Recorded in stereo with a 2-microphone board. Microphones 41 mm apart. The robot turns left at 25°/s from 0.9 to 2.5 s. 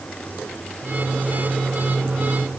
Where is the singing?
No singing in this recording.